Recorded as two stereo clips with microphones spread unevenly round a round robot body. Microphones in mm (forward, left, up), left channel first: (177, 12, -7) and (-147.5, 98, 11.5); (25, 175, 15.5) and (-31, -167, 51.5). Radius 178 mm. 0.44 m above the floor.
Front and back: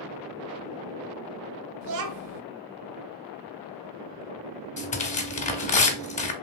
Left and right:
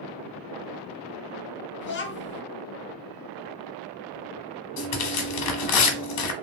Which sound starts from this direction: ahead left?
Tearing paper, at 4.8 s.